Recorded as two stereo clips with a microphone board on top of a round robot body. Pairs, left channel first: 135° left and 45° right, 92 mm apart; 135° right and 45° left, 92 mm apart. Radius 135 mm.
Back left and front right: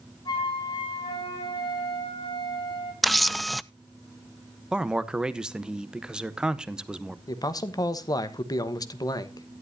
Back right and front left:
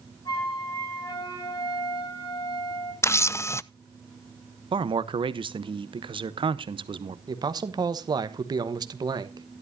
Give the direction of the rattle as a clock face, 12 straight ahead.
No rattle in this recording.